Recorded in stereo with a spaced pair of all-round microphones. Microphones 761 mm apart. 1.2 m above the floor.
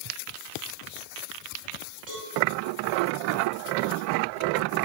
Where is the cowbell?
75° right (ahead or behind), 10 m.